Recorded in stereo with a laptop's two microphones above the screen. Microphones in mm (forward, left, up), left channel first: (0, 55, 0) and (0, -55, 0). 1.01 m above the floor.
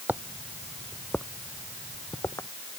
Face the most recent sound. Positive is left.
turn(degrees=25)  # may be behind; listen again after turning